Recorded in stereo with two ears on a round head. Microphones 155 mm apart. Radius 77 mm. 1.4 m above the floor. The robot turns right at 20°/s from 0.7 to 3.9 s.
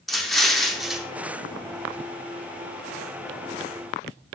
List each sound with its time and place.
0.1 s an explosion: centre (ahead or behind), 0.8 m; by 1.1 s 5° right (ahead or behind), 0.8 m